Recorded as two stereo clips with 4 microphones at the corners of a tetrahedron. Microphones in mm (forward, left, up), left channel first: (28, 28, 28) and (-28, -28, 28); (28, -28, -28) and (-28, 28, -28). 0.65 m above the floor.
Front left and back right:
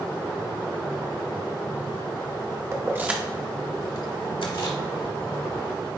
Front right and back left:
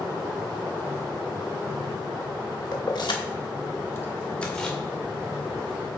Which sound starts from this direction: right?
Keys jangling, at 2.7 s.